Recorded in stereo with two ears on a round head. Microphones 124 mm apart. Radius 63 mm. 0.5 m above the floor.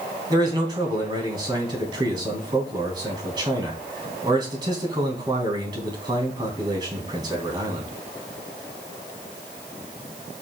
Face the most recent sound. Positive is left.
turn(degrees=-30)  # may be behind; listen again after turning